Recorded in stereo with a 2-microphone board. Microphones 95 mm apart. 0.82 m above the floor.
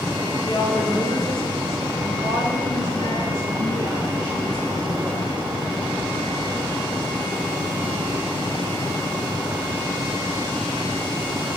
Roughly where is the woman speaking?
Left.